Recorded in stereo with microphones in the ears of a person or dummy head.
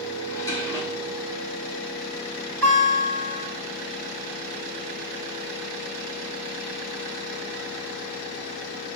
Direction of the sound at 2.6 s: 10° left (ahead or behind).